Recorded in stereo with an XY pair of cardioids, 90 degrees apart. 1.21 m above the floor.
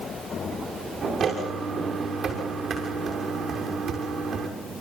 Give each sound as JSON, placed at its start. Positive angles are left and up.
{"t": 1.2, "sound": "footsteps", "azimuth_deg": -60, "distance_m": 6.5}